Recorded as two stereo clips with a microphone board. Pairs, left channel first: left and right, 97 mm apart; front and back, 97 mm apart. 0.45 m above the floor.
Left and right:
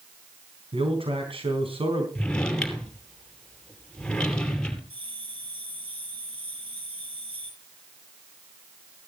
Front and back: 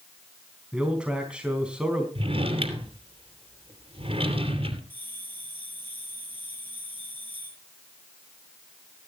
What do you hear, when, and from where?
0.7 s a man speaking: 100° right, 4 m
2.1 s a drawer: 170° left, 2.5 m
4.9 s a bell: 70° right, 6.5 m